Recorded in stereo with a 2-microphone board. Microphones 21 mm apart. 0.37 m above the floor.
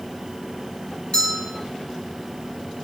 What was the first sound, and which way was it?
A bell, 50° left (ahead or behind).